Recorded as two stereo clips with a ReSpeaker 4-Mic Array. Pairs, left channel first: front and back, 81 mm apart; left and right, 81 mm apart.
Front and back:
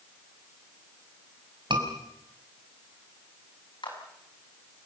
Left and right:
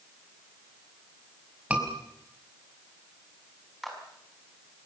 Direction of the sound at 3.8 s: Straight ahead.